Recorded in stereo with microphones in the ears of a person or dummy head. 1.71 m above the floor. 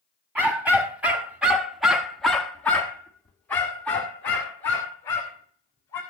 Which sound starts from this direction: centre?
A dog barking, at 0.3 s.